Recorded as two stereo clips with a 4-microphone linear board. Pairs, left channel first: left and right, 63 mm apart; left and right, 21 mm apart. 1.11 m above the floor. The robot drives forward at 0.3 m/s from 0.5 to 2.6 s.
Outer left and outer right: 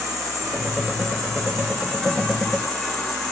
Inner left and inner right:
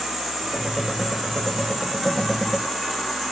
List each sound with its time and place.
0.0 s an insect: 5° left (ahead or behind), 1.0 m; by 3.3 s 10° left (ahead or behind), 0.8 m